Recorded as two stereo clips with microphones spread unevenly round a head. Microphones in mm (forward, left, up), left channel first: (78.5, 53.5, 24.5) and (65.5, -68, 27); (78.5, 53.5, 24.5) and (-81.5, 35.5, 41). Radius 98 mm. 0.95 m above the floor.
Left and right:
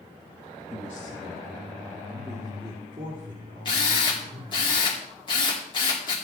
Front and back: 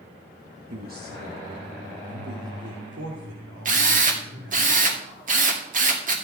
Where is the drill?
145° left, 2 m.